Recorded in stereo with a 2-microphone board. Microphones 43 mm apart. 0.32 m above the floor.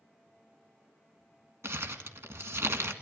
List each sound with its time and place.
1.6 s crumpling: 75° right (ahead or behind), 1.7 m